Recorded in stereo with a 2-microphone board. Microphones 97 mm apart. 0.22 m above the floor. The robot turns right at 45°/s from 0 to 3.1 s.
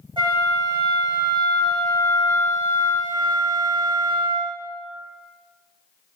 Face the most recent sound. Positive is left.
turn(degrees=60)